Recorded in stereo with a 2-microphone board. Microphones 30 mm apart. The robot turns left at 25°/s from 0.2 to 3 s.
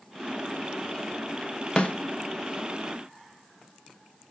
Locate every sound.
1.8 s a snare drum: 40° left (ahead or behind), 0.8 m